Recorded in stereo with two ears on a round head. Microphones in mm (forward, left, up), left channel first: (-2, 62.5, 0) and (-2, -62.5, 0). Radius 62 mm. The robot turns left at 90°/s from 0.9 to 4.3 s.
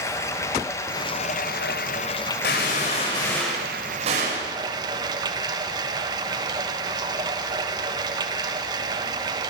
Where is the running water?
155° left, 1.4 m; by 9.5 s 150° right, 1.4 m.